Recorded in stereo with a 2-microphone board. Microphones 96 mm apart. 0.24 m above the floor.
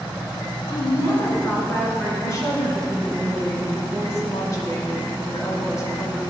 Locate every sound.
0.7 s a woman speaking: 55° left (ahead or behind), 2.5 m; by 2.1 s 15° left (ahead or behind), 3 m
2.2 s a woman speaking: 35° left (ahead or behind), 1.8 m